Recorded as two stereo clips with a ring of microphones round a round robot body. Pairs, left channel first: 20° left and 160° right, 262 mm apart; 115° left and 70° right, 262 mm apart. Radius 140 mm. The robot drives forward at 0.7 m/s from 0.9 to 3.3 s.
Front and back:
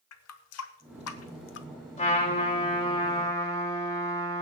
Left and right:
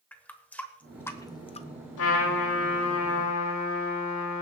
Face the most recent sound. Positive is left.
turn(degrees=100)